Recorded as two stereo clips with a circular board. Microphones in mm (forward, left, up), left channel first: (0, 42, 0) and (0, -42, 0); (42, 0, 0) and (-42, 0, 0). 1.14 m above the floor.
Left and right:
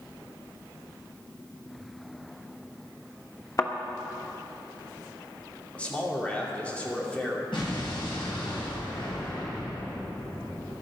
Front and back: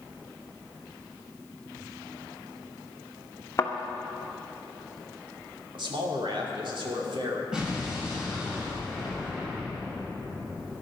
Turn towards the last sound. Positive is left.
turn(degrees=100)